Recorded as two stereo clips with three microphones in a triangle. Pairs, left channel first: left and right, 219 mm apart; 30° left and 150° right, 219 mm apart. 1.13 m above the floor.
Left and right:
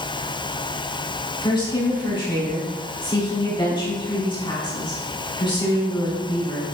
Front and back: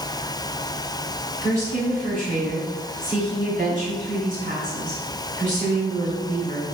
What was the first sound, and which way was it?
A woman speaking, 160° left.